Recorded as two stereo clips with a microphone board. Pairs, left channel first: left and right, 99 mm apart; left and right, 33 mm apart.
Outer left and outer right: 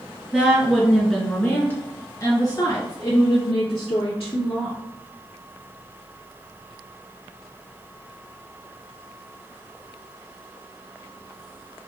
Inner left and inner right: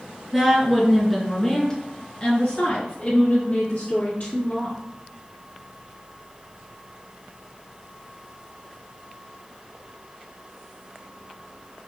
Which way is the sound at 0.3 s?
10° right (ahead or behind).